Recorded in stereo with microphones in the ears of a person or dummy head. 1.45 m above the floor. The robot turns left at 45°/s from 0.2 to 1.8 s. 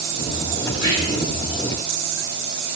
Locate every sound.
0.7 s whispering: 55° left (ahead or behind), 1.2 m; by 1.3 s 80° left, 1.2 m